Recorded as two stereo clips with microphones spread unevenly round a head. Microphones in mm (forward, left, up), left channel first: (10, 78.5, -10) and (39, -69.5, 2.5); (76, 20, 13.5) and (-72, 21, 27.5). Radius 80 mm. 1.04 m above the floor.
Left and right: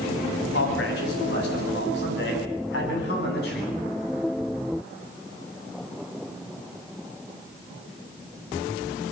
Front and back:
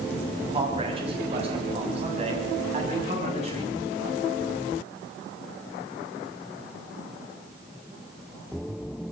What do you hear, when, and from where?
0.5 s a man speaking: 125° left, 8.5 m; by 3.7 s 135° left, 10.5 m